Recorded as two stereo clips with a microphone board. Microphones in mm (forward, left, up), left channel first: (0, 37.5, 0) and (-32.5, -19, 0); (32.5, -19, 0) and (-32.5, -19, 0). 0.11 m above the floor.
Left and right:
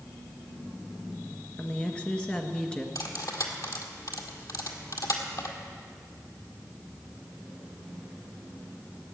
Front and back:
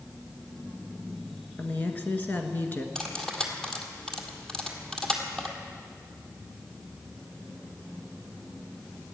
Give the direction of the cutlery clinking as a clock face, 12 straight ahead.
9 o'clock.